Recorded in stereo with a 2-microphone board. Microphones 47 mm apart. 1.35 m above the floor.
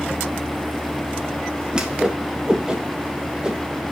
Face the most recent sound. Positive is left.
turn(degrees=-15)  # may be behind; listen again after turning